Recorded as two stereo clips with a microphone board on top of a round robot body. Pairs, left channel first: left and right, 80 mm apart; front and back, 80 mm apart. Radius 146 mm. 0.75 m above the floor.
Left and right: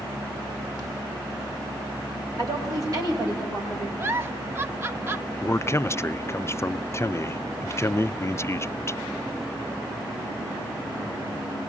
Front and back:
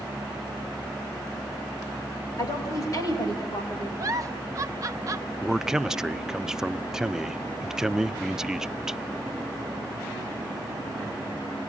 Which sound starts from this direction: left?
A man speaking, at 5.4 s.